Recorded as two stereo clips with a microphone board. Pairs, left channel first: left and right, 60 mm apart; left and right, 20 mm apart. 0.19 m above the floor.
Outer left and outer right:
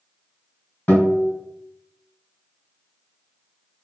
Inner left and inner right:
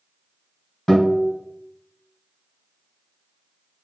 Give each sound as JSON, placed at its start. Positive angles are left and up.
{"t": 0.9, "sound": "a guitar", "side_deg": 30, "distance_m": 1.8}